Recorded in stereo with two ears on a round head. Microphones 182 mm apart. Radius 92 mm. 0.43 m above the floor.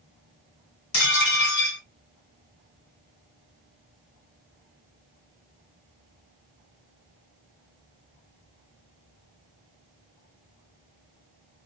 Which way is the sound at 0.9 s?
55° left (ahead or behind).